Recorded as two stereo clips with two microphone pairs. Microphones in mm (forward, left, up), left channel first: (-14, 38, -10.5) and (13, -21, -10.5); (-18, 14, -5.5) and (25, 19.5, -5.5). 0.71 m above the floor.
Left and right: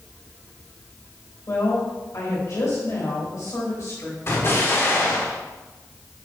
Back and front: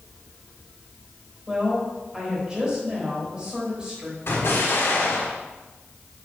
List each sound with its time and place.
1.5 s a woman speaking: 80° left, 3.5 m
4.3 s an explosion: 165° left, 1.4 m